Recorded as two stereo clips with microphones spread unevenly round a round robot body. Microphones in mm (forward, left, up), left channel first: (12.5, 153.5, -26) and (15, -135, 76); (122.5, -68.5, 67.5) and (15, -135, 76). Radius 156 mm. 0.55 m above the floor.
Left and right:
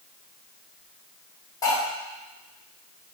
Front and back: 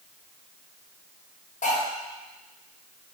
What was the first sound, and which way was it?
Cutlery clinking, 15° left.